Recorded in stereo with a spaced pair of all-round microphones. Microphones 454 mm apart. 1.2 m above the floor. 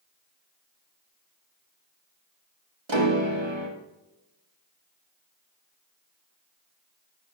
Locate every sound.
2.9 s a piano: 80° right, 1.6 m